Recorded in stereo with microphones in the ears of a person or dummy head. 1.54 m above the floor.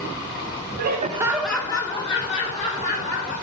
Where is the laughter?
65° right (ahead or behind), 0.8 m; by 3.3 s 40° left (ahead or behind), 3 m.